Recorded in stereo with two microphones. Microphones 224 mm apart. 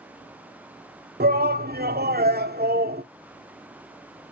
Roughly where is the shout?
Right.